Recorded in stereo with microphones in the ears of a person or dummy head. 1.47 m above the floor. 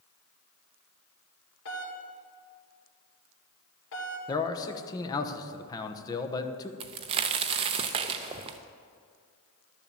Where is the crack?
30° right (ahead or behind), 0.6 m.